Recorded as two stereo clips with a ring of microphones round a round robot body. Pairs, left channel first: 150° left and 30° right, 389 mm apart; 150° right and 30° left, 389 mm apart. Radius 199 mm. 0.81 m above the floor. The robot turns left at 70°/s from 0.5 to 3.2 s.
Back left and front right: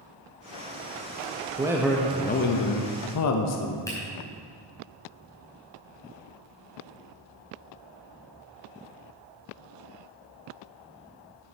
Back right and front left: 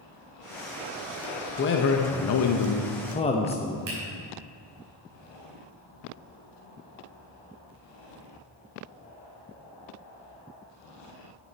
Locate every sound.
1.6 s a man speaking: 100° right, 0.7 m; by 3.8 s 145° left, 0.7 m
3.9 s a finger snap: 70° left, 3.5 m